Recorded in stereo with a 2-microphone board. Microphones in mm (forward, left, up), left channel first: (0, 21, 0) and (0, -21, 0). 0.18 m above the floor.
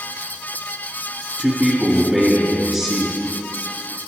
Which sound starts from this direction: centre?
A man speaking, at 1.4 s.